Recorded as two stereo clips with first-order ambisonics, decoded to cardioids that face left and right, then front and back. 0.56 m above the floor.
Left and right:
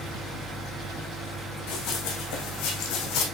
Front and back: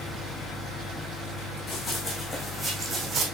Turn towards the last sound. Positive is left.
turn(degrees=120)